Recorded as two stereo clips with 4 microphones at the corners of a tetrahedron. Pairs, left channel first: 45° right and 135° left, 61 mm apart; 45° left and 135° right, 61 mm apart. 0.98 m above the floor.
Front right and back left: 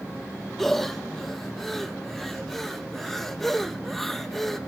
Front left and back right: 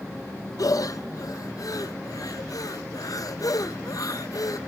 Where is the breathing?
40° left, 0.6 m.